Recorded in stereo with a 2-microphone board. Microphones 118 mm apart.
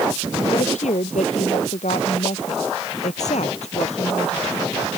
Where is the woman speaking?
85° left; by 4.9 s 65° left (ahead or behind).